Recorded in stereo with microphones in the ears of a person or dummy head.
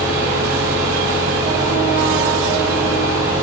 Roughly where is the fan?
Centre.